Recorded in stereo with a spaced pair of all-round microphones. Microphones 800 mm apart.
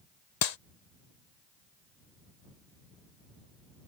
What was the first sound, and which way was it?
A clap, 55° left (ahead or behind).